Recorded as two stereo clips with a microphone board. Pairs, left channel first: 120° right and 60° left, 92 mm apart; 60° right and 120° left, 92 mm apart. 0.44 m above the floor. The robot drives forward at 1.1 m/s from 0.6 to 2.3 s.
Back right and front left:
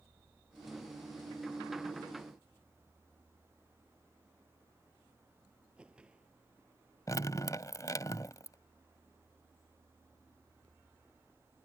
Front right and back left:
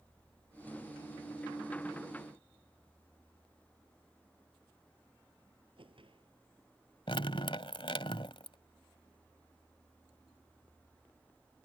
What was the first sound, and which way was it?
A whoosh, 140° left.